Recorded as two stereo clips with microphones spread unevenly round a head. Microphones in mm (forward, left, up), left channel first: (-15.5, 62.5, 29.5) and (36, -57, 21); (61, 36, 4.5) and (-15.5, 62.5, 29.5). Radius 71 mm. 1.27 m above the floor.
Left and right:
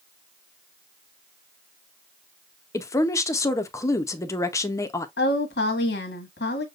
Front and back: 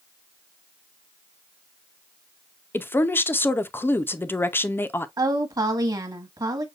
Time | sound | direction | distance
2.7 | a woman speaking | 45° left | 0.6 m
5.2 | a woman speaking | 120° left | 1.4 m